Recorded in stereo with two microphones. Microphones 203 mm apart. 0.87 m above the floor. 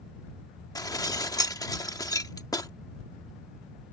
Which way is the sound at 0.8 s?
15° left (ahead or behind).